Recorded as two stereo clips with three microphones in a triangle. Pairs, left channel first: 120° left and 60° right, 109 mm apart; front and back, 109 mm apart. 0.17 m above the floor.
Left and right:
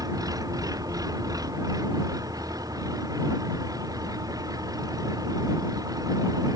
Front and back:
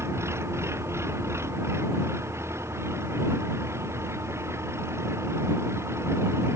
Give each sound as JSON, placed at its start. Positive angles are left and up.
{"t": 0.0, "sound": "an engine running", "azimuth_deg": -115}